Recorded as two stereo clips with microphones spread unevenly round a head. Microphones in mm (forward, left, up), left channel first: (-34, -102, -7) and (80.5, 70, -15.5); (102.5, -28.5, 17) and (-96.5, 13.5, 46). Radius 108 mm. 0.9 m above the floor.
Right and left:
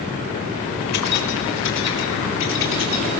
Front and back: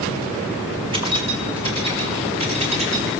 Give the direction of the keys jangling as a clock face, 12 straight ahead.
4 o'clock.